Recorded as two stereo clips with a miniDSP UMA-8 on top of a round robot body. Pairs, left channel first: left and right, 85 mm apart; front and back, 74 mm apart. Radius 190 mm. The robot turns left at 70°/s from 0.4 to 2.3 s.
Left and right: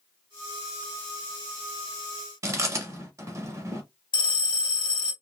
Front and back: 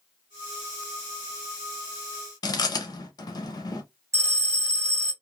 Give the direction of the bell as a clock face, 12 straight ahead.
8 o'clock.